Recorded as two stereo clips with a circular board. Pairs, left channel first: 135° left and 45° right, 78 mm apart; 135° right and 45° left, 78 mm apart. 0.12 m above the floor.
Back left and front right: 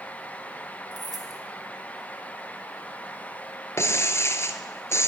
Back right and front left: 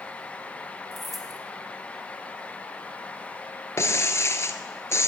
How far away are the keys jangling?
About 2 m.